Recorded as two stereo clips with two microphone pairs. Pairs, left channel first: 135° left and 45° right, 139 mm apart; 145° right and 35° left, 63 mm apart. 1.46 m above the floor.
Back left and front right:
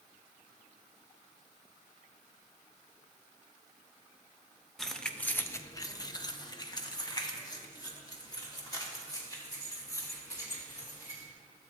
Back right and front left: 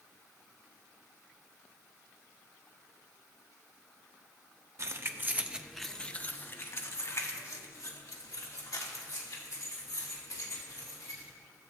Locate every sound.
4.8 s keys jangling: 50° left, 0.6 m; by 11.3 s 160° right, 3 m